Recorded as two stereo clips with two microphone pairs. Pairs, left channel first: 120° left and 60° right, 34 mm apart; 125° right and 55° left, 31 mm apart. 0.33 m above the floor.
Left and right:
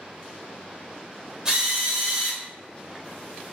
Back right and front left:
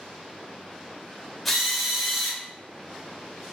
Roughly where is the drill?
Ahead right.